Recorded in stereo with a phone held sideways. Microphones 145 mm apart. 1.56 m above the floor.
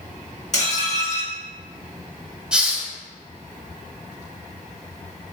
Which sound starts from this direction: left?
Dishes clattering, at 0.5 s.